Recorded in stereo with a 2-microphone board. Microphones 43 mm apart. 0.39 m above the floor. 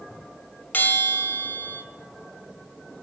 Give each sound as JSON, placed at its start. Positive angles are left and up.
{"t": 0.7, "sound": "a bell", "side_deg": 45, "distance_m": 2.0}